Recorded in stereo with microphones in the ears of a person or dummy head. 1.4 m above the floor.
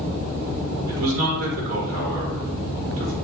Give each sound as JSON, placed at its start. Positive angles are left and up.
{"t": 0.9, "sound": "a man speaking", "side_deg": -85, "distance_m": 1.4}